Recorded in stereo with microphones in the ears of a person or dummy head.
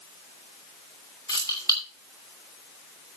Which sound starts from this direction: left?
Keys jangling, at 1.3 s.